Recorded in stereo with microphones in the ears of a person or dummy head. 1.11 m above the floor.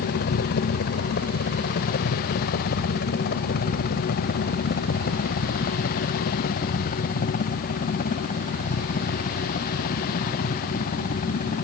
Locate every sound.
0.0 s a helicopter: 60° left (ahead or behind); by 11.7 s 40° left (ahead or behind)